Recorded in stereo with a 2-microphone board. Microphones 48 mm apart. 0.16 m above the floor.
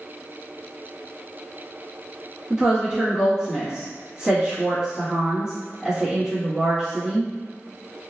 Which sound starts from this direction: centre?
A woman speaking, at 2.5 s.